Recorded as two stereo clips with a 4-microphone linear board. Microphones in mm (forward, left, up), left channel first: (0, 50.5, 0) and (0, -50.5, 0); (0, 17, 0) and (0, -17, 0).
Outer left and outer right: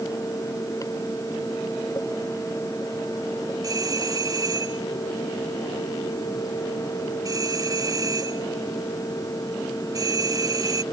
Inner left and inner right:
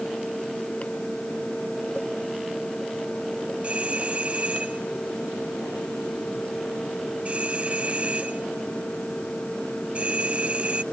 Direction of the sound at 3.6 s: 35° right (ahead or behind).